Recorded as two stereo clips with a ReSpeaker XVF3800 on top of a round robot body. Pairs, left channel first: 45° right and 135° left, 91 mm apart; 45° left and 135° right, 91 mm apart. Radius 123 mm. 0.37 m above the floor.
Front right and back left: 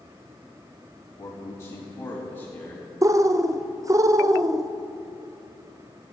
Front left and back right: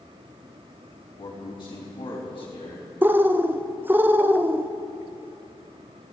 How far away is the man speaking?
About 3.5 m.